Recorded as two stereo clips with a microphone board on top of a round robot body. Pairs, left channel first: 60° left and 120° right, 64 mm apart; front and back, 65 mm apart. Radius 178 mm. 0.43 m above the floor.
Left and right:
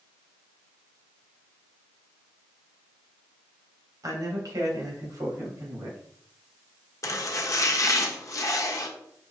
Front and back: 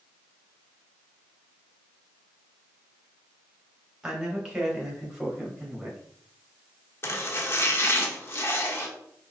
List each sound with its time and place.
4.0 s a man speaking: 100° right, 2 m; by 6.0 s 90° right, 3.5 m
7.0 s chopping: 40° left, 1.2 m